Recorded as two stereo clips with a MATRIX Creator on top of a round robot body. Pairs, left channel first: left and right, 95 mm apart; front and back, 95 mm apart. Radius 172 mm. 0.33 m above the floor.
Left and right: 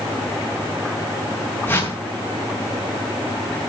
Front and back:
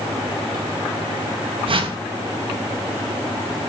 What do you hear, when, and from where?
1.7 s a whoosh: 160° left, 2.5 m